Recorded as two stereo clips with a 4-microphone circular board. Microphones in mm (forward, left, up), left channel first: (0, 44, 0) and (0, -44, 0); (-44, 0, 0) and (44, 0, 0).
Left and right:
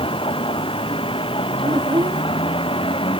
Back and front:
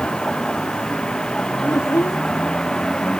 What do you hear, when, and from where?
0.0 s a vehicle: 100° left
1.6 s a child speaking: 125° right